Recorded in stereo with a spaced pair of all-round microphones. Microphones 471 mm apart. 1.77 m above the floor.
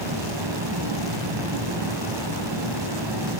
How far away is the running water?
About 3.5 m.